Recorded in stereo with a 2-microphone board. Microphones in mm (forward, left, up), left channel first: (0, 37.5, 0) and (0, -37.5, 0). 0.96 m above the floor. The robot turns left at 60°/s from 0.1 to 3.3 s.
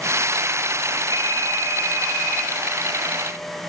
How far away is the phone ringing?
About 5 m.